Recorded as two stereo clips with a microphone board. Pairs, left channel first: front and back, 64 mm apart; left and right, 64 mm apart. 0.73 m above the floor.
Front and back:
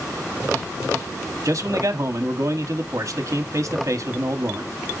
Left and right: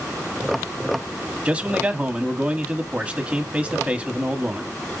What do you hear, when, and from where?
1.4 s a man speaking: 160° right, 1.1 m